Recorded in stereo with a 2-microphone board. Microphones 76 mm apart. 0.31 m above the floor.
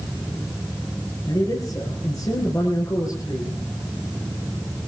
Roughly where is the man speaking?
Left.